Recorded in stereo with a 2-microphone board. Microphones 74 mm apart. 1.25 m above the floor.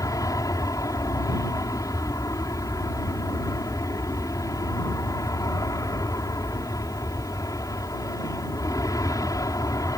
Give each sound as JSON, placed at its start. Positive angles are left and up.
{"t": 0.0, "sound": "an aircraft", "side_deg": 50}